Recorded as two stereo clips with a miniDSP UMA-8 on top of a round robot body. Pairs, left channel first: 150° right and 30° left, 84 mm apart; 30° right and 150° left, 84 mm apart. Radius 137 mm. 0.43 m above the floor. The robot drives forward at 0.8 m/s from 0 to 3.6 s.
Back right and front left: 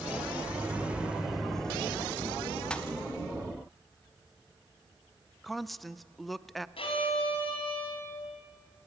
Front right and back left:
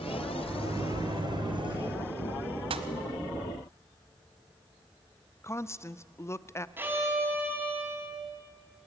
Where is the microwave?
95° left, 1.7 m; by 2.0 s 135° left, 2 m.